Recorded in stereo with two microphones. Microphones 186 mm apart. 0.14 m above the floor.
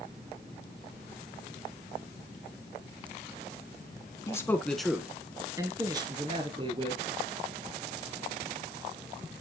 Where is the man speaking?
20° left (ahead or behind), 1.1 m; by 7.0 s 30° right (ahead or behind), 2.5 m.